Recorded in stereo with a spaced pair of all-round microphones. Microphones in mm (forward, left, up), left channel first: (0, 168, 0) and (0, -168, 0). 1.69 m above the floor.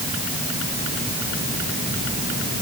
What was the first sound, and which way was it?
Only background noise.